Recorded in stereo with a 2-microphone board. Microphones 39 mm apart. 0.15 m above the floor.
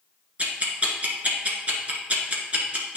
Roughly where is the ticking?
Right.